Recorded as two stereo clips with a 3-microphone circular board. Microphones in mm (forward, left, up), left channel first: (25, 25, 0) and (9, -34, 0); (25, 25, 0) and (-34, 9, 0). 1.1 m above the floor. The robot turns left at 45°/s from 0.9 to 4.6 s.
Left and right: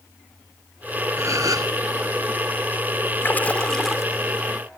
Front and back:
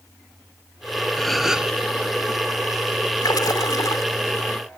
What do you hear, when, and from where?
1.2 s a gasp: 70° right; by 1.7 s 95° right
3.2 s a splash: 20° left; by 4.0 s 20° right